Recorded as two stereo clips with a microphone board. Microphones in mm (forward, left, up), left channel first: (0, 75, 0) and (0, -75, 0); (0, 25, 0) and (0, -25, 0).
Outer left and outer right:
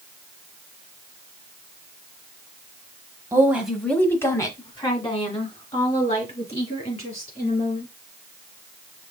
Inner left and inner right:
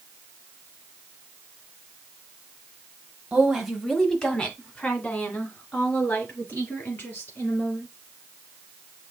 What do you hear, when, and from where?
3.3 s a woman speaking: 15° right (ahead or behind), 0.9 m; by 7.9 s 45° left (ahead or behind), 4 m